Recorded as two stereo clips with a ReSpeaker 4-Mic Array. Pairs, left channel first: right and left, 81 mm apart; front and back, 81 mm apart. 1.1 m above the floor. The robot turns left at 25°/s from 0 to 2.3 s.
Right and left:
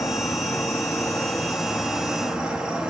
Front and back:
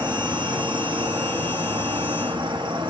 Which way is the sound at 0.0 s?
130° right.